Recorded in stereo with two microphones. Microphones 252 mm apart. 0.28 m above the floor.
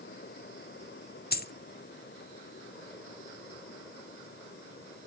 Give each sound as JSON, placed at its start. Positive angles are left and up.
{"t": 1.3, "sound": "a dropped coin", "side_deg": 40, "distance_m": 0.5}